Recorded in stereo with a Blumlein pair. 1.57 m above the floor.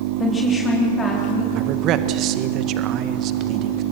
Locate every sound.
0.2 s a woman speaking: 15° left, 3.5 m; by 1.4 s 20° left, 4 m
1.6 s a man speaking: 35° right, 1.6 m